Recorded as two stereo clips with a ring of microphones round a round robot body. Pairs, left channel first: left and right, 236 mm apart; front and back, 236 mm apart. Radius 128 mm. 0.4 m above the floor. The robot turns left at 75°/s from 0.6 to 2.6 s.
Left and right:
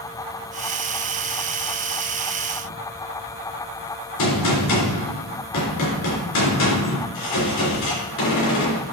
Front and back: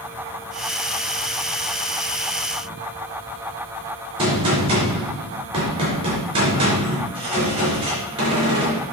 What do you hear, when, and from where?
4.2 s a gunshot: 110° left, 4 m